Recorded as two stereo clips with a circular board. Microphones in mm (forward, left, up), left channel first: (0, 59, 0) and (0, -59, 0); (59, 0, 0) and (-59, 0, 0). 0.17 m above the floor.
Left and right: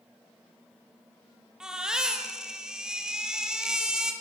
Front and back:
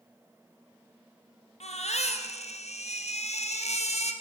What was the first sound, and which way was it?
A baby crying, 5° right.